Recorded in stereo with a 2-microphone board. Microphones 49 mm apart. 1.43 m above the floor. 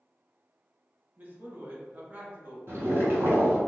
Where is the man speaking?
35° right (ahead or behind), 1.0 m.